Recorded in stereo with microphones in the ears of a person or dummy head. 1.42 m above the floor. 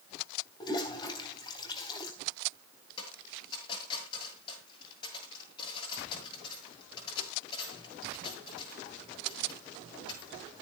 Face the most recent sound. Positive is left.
turn(degrees=30)  # may be behind; listen again after turning